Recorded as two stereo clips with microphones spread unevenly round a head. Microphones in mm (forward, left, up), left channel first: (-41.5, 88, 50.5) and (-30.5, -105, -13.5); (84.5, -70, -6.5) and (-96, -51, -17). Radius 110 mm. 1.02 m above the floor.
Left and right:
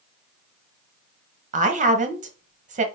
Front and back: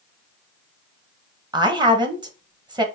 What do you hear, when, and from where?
1.5 s a woman speaking: 125° right, 1.1 m